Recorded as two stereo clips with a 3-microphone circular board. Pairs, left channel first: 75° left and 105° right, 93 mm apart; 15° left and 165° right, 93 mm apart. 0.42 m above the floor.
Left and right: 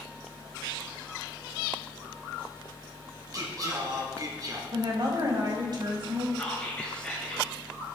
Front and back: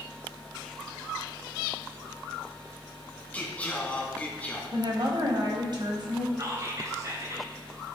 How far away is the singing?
About 1.7 m.